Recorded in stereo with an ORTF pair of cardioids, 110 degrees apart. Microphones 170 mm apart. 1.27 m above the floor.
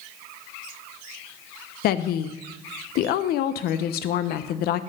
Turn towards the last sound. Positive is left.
turn(degrees=70)